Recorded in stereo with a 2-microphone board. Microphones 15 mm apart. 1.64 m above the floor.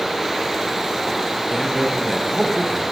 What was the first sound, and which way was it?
A man speaking, 35° right (ahead or behind).